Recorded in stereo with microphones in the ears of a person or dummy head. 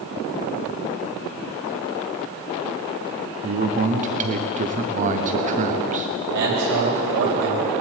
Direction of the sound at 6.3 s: 65° right (ahead or behind).